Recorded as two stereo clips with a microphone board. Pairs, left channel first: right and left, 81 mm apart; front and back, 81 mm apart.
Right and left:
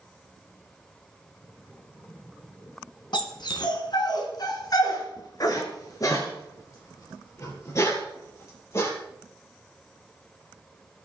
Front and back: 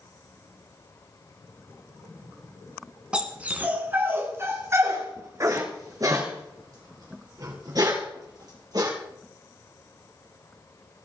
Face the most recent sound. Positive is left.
turn(degrees=-145)